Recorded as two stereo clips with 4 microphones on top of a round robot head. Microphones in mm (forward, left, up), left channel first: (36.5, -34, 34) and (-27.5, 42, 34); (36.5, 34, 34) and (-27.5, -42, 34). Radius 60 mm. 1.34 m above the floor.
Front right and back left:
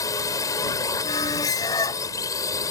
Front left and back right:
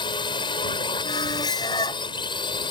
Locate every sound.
0.0 s a drone: 5° left
1.0 s a squeak: straight ahead